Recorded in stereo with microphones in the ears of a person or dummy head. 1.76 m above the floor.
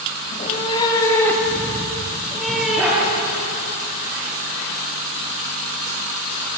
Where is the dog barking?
5° right (ahead or behind), 9 m.